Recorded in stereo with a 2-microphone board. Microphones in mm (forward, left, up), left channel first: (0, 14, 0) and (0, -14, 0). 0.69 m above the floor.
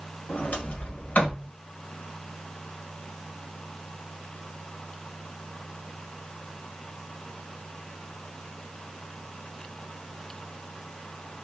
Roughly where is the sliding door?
Left.